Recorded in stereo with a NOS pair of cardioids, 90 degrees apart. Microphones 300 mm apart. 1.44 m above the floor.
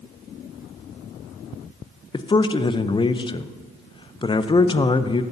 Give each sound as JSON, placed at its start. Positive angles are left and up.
{"t": 2.1, "sound": "a man speaking", "azimuth_deg": 15, "distance_m": 0.6}